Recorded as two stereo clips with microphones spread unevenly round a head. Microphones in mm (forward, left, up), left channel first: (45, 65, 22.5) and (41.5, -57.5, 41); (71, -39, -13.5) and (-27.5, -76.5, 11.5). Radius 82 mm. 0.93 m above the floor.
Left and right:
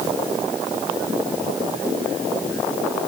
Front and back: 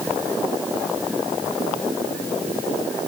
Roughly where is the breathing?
No breathing in this recording.